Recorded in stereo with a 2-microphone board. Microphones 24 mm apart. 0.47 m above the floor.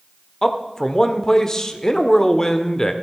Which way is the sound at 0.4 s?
20° left (ahead or behind).